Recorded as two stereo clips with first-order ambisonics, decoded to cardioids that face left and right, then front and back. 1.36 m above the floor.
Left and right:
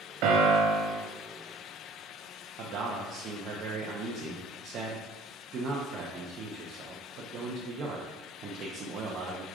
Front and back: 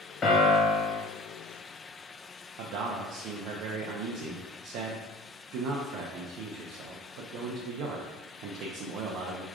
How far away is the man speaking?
About 0.5 m.